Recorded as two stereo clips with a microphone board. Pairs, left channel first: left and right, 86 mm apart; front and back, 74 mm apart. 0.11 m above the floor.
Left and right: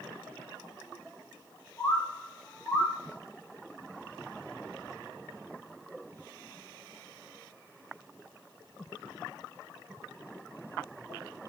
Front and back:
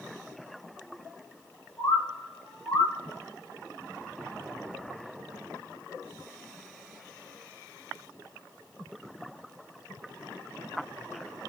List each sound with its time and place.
1.8 s a bird: 30° left, 4 m